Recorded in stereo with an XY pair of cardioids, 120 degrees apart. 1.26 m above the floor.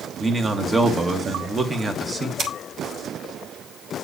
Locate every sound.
0.2 s a man speaking: 20° right, 1.4 m
2.4 s scissors: 50° right, 1.7 m